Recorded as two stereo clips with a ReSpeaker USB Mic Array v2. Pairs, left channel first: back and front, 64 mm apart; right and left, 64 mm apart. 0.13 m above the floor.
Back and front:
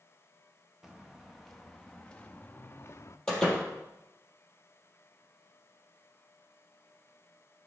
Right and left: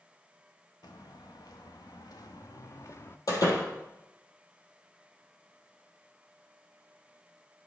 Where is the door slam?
100° right, 3 m.